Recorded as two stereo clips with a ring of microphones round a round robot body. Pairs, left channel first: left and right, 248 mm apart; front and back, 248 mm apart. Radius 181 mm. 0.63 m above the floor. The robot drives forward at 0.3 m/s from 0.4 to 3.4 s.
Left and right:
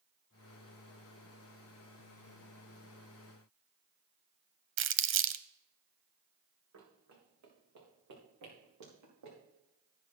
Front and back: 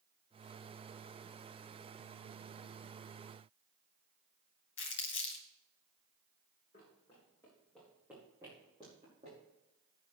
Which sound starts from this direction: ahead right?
Crumpling, at 4.8 s.